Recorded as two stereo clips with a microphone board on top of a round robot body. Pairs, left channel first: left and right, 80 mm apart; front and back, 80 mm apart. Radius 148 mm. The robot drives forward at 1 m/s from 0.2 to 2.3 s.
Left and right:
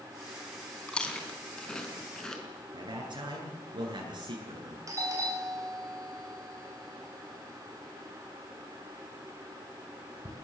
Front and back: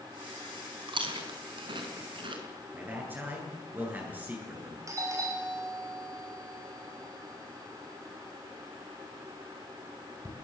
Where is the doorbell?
135° right, 5 m.